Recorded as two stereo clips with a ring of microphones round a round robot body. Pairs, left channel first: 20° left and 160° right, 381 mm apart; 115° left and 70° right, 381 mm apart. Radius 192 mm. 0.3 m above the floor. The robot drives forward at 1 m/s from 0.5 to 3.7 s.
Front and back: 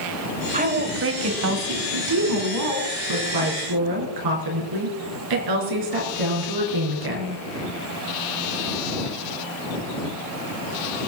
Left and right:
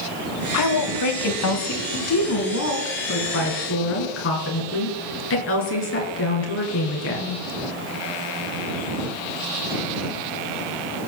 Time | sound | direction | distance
0.5 | a woman speaking | 135° left | 1.3 m